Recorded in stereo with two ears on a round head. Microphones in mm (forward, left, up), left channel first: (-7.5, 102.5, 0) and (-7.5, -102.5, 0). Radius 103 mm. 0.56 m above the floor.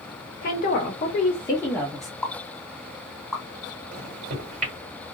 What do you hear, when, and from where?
0.4 s a woman speaking: 40° left (ahead or behind), 1.3 m; by 2.1 s centre (ahead or behind), 1.0 m
2.2 s a pop: centre (ahead or behind), 1.7 m
3.9 s a microwave: 40° right (ahead or behind), 2.5 m